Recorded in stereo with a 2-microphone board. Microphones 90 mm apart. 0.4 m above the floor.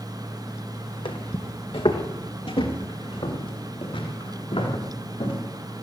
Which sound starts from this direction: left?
Footsteps, at 1.1 s.